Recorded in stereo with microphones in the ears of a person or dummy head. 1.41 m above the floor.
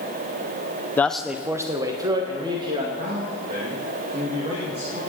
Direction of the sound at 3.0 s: 30° right (ahead or behind).